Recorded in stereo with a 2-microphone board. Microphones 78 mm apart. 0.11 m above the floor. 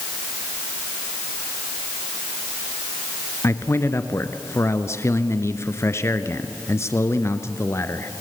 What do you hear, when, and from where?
3.4 s a man speaking: 35° left (ahead or behind), 1.4 m